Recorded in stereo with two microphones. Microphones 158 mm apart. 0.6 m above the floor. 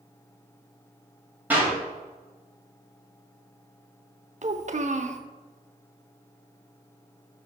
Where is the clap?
10° right (ahead or behind), 2.5 m.